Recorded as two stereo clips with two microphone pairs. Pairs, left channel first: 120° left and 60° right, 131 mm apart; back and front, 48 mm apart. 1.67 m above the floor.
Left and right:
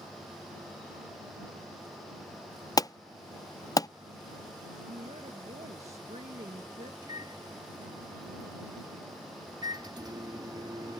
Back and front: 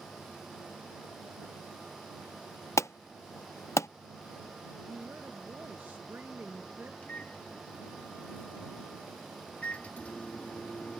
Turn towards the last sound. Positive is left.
turn(degrees=-120)